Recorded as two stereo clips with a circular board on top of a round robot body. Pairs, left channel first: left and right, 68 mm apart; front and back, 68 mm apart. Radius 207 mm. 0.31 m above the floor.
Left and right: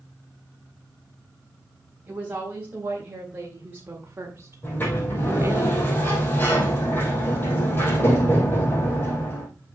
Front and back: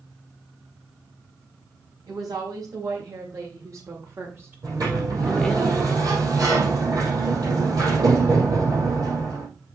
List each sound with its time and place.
2.1 s a woman speaking: 155° right, 3.5 m; by 5.6 s 75° right, 1.5 m
4.6 s a sliding door: 150° left, 4.5 m